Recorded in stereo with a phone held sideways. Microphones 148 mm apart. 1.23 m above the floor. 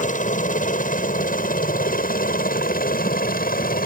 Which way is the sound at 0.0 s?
60° left (ahead or behind).